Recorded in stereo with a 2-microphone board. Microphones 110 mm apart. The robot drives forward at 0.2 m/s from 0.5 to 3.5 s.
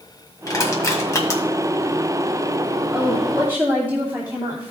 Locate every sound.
0.5 s crushing: 30° left (ahead or behind), 1.8 m; by 1.4 s 25° left (ahead or behind), 1.9 m
2.9 s a woman speaking: 20° right (ahead or behind), 2 m